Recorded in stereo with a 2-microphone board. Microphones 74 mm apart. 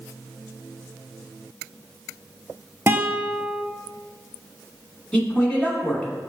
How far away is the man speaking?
About 1.0 m.